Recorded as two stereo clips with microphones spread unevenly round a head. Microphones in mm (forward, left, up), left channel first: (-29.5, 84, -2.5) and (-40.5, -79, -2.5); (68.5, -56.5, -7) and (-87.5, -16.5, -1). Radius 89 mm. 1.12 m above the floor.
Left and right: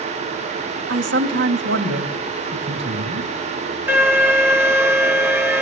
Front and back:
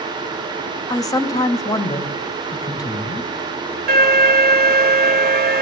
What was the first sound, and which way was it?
A man speaking, 80° right.